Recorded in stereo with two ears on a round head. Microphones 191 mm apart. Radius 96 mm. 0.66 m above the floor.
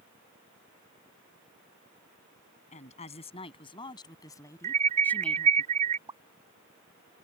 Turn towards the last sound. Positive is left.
turn(degrees=-20)  # may be behind; listen again after turning